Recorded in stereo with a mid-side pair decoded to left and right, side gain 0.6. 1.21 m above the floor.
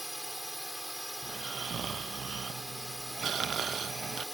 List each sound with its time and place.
0.0 s a drone: straight ahead
1.2 s snoring: 40° right